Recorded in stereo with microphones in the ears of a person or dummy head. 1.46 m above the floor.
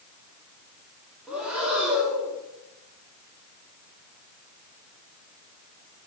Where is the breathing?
5° right (ahead or behind), 3 m.